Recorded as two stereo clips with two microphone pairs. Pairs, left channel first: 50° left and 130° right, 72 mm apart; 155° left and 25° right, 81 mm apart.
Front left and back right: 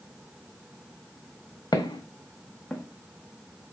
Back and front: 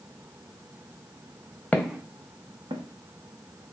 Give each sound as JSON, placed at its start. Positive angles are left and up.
{"t": 1.7, "sound": "footsteps", "azimuth_deg": 80, "distance_m": 0.6}